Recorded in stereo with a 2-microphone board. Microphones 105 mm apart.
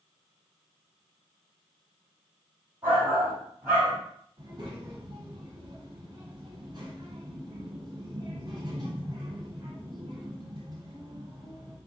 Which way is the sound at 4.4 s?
50° right (ahead or behind).